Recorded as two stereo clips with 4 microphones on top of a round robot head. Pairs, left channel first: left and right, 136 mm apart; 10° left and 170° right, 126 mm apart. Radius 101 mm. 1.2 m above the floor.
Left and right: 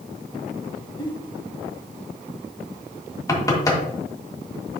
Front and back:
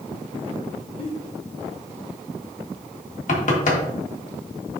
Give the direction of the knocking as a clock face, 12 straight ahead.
11 o'clock.